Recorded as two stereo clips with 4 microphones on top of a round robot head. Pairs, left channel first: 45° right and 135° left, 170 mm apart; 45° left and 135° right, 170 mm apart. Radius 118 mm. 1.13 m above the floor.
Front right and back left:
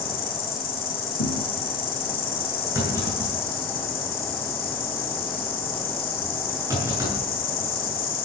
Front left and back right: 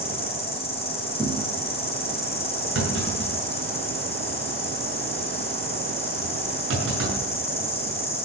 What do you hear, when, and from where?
0.0 s an insect: 10° right, 3 m
1.2 s a thud: 55° right, 3 m
2.8 s a clunk: 150° right, 7.5 m